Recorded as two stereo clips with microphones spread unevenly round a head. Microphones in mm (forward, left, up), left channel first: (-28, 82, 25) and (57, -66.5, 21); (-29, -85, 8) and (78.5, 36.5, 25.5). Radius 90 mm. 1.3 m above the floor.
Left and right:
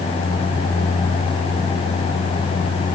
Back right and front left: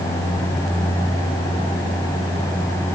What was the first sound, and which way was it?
Only background noise.